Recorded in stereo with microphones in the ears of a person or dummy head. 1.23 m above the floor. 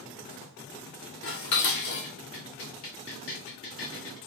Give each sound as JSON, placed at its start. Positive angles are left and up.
{"t": 1.2, "sound": "dishes clattering", "side_deg": 65, "distance_m": 0.8}